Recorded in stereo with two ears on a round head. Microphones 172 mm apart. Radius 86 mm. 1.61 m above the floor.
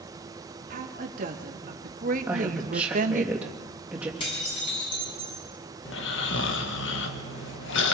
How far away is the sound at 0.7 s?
About 3 m.